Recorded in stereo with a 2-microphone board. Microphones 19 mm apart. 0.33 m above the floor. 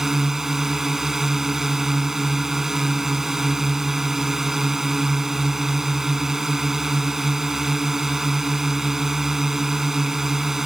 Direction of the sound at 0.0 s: 20° right (ahead or behind).